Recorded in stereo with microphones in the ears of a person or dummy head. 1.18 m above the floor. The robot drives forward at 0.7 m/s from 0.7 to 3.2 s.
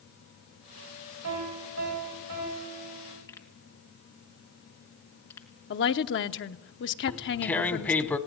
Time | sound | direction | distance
1.2 | a piano | 80° right | 6 m
3.3 | a pop | 15° left (ahead or behind) | 1.9 m
5.7 | a woman speaking | 50° left (ahead or behind) | 0.9 m
7.1 | tearing paper | 10° left (ahead or behind) | 0.9 m